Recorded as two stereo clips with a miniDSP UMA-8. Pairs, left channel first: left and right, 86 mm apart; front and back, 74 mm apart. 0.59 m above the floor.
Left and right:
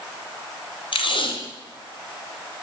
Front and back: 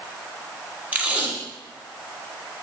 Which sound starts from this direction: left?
Tape being pulled, at 0.9 s.